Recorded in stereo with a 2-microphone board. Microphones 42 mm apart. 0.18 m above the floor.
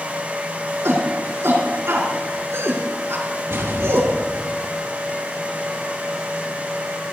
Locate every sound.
0.8 s a shout: 70° right (ahead or behind), 6 m
3.5 s an explosion: 65° right (ahead or behind), 3.5 m